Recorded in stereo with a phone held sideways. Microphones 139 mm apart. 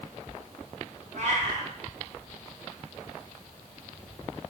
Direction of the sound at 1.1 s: 60° right (ahead or behind).